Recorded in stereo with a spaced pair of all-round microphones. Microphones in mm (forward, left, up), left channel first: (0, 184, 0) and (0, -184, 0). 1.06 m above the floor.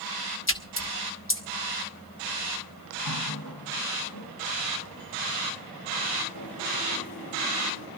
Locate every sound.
0.5 s a splash: 35° left (ahead or behind), 1.4 m
3.0 s a running tap: 80° left, 6 m